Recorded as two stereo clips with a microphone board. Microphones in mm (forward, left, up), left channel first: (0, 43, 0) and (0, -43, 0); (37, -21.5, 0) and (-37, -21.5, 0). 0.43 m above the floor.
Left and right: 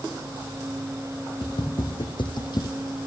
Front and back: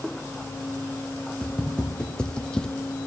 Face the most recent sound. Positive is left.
turn(degrees=75)